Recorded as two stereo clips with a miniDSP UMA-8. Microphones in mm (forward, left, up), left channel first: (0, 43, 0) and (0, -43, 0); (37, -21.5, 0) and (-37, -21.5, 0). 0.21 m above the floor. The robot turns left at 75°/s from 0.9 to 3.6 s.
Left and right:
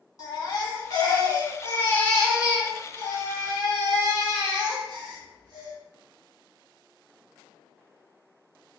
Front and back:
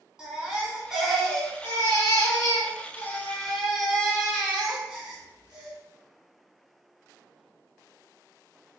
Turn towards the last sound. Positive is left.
turn(degrees=-100)